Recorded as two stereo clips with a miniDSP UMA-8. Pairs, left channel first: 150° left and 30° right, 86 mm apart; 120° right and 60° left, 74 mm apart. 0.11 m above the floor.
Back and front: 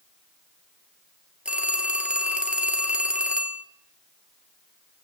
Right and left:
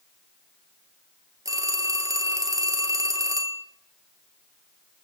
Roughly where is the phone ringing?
Ahead left.